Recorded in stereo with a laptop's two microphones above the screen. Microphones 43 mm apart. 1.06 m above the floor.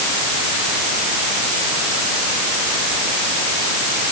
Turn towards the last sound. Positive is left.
No sound to turn to.